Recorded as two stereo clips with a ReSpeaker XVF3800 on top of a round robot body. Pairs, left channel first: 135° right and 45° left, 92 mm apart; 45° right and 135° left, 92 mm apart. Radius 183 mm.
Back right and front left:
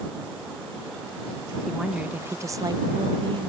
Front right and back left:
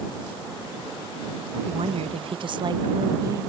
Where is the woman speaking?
140° left; by 3.5 s 75° left.